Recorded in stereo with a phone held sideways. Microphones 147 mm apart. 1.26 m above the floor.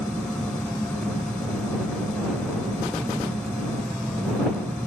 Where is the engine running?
10° left (ahead or behind).